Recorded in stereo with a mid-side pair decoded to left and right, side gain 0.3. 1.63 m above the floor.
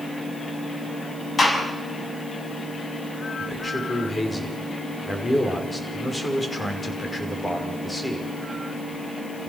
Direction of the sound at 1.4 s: 40° left.